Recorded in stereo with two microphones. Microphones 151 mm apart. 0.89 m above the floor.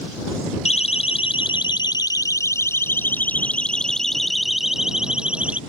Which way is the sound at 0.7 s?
45° left (ahead or behind).